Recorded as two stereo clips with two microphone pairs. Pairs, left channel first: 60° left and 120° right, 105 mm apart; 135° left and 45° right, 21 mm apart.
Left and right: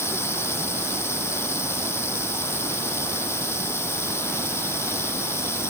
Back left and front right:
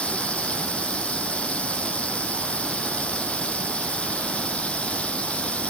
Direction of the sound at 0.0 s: 130° left.